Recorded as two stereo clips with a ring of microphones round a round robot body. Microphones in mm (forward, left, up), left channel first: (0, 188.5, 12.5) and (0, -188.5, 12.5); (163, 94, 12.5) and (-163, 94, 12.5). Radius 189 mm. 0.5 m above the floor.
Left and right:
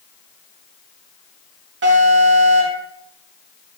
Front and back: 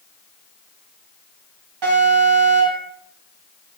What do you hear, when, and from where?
1.8 s an alarm: 150° right, 4 m